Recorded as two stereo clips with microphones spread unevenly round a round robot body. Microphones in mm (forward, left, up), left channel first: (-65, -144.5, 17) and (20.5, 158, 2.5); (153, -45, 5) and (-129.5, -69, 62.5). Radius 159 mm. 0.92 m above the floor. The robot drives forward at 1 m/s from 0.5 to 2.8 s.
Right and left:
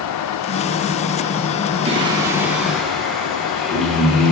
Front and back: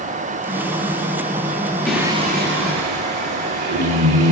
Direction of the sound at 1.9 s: 50° left.